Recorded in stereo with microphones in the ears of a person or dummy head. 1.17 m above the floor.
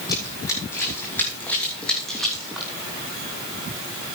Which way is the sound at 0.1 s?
25° left (ahead or behind).